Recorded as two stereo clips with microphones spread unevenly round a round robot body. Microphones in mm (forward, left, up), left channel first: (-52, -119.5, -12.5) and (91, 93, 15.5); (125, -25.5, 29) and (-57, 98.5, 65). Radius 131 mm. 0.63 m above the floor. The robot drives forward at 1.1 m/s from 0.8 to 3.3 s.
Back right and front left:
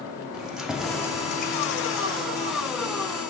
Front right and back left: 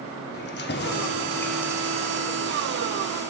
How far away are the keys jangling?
About 0.9 m.